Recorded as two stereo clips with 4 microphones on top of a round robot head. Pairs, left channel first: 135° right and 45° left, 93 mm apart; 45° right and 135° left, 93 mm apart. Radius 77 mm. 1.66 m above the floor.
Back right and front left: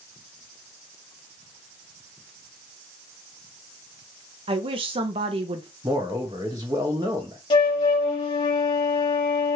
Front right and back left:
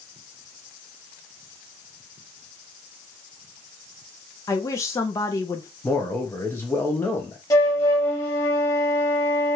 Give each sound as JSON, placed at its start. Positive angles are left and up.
{"t": 4.5, "sound": "a woman speaking", "azimuth_deg": 15, "distance_m": 0.5}
{"t": 5.8, "sound": "a man speaking", "azimuth_deg": 15, "distance_m": 0.6}
{"t": 7.5, "sound": "a flute", "azimuth_deg": -105, "distance_m": 0.6}